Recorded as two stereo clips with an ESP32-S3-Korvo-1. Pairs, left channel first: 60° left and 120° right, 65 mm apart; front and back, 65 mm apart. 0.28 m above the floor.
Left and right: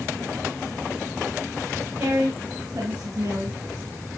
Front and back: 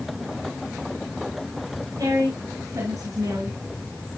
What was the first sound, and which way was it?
A woman speaking, 170° left.